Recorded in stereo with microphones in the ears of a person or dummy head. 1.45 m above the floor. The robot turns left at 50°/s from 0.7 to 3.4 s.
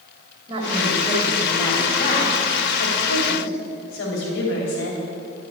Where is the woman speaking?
145° right, 3 m; by 5.0 s 80° left, 3 m.